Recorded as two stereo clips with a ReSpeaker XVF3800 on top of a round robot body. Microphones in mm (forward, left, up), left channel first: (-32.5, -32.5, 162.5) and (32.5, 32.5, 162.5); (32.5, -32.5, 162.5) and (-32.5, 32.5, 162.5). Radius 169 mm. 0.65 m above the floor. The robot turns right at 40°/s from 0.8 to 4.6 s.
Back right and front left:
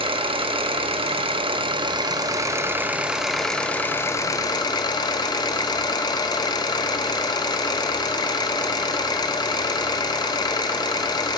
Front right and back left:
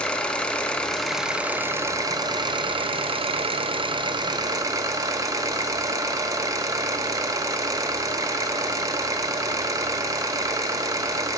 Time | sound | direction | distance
0.0 | an engine running | 35° left | 1.2 m